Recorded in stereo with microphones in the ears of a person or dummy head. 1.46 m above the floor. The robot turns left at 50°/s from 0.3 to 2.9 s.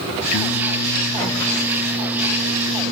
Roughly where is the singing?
Left.